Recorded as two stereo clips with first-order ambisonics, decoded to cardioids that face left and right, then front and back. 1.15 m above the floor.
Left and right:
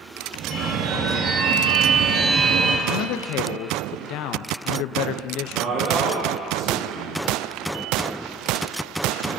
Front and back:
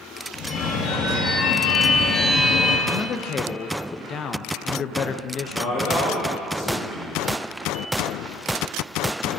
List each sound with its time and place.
0.3 s a phone ringing: 45° right, 1.1 m
2.9 s a man speaking: 60° left, 0.5 m
5.5 s a man speaking: 30° right, 5 m